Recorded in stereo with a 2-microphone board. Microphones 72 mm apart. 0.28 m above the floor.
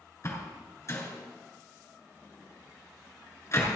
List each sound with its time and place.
0.2 s a door slam: 45° left (ahead or behind), 3 m